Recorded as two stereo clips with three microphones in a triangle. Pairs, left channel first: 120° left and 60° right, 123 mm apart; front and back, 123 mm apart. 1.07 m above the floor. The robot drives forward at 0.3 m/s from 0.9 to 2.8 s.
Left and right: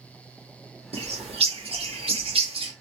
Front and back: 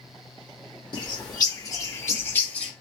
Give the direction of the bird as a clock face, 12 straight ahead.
1 o'clock.